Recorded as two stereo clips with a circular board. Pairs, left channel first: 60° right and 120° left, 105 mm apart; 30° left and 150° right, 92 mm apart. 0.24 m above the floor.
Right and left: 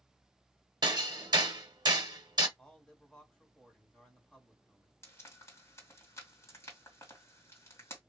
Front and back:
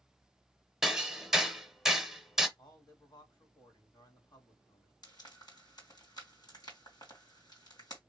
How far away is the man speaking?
About 2 m.